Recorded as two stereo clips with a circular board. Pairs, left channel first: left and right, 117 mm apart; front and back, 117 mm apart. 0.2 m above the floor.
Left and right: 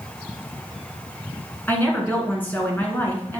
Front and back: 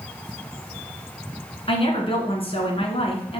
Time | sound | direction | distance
1.7 | a woman speaking | 20° left | 2 m